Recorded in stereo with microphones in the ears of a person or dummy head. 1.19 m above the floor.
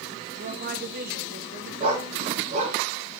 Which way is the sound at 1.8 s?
40° right (ahead or behind).